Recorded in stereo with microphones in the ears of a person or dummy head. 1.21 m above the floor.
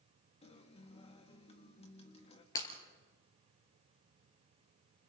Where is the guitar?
30° left (ahead or behind), 1.7 m.